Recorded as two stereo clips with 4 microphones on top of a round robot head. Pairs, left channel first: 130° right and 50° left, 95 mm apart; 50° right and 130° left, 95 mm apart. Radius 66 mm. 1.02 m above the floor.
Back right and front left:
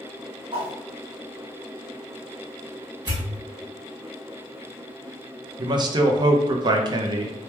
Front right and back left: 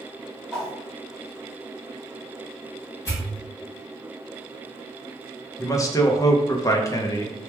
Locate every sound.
0.5 s a whoosh: 35° left, 1.1 m
3.0 s a pop: straight ahead, 1.6 m
5.6 s a man speaking: 5° left, 0.6 m